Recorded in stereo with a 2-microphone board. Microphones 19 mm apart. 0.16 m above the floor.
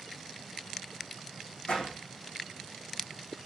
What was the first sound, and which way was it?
A door slam, 65° left (ahead or behind).